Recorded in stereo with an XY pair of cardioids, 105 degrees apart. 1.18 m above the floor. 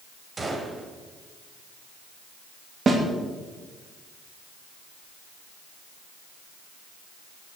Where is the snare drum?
40° right, 2.5 m.